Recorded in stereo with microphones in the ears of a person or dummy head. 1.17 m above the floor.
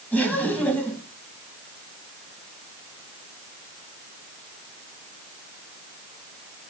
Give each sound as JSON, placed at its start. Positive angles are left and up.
{"t": 0.1, "sound": "laughter", "side_deg": 5, "distance_m": 1.6}